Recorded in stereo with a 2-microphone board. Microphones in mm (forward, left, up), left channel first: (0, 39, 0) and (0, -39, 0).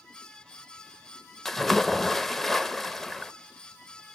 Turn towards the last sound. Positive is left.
turn(degrees=5)  # may be behind; listen again after turning